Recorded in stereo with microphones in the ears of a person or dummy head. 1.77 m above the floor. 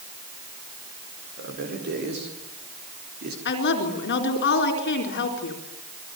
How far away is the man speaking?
About 6.5 m.